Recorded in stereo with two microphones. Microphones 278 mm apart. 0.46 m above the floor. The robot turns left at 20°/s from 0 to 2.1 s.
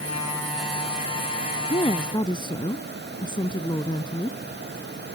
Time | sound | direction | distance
1.7 | a woman speaking | 25° left (ahead or behind) | ?